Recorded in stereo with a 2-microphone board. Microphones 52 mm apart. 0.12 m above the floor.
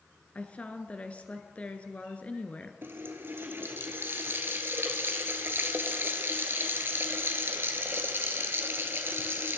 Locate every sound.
0.3 s a woman speaking: 25° left (ahead or behind), 1.3 m
2.8 s a running tap: 45° right (ahead or behind), 1.3 m